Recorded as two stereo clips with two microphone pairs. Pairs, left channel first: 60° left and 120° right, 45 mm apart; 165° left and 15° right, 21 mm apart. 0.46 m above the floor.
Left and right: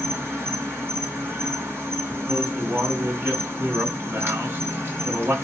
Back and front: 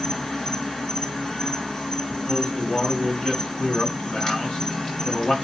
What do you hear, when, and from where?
0.0 s an insect: 135° right, 4.5 m
2.3 s a man speaking: 155° right, 4.5 m